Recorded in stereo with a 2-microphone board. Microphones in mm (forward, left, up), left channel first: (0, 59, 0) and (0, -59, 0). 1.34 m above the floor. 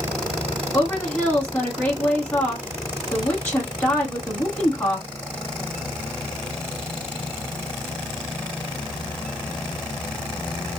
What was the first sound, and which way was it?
A woman speaking, 20° left (ahead or behind).